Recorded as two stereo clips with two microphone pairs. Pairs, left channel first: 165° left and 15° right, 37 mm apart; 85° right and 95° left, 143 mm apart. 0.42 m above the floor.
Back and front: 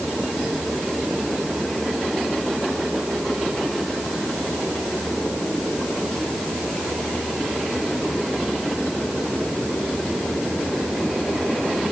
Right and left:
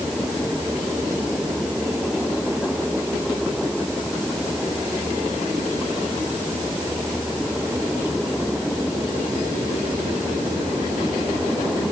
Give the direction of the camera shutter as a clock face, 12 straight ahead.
I don't hear a camera shutter.